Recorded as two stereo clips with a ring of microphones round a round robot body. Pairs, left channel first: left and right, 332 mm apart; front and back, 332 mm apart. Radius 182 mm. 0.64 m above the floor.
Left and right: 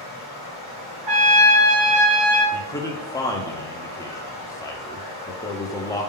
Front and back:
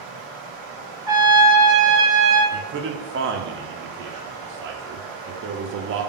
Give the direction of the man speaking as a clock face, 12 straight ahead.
7 o'clock.